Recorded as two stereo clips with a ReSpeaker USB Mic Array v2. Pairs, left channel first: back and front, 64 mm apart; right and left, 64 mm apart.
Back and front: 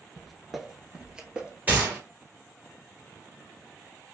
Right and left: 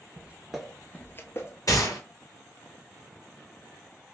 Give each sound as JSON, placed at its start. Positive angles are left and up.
{"t": 0.2, "sound": "footsteps", "azimuth_deg": 90, "distance_m": 0.9}
{"t": 1.7, "sound": "a gunshot", "azimuth_deg": -65, "distance_m": 2.0}